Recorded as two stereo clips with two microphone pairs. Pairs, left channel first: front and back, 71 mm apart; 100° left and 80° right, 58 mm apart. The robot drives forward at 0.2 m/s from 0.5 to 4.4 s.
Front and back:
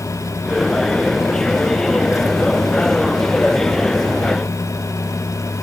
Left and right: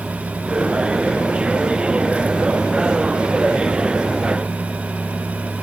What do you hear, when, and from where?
Only background noise.